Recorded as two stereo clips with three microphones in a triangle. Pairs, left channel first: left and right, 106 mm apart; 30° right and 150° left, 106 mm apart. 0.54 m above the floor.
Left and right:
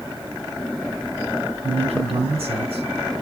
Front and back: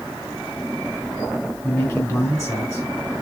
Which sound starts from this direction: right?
A man speaking, at 1.6 s.